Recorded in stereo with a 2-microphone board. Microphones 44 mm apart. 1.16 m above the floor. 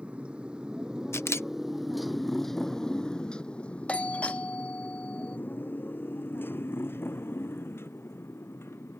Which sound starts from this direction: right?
A motorcycle, at 0.0 s.